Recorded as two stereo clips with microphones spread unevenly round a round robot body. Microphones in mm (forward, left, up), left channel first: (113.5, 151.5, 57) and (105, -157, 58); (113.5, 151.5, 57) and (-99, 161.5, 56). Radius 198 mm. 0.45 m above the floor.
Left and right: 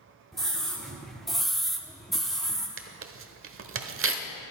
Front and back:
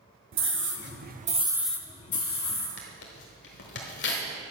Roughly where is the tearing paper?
Ahead right.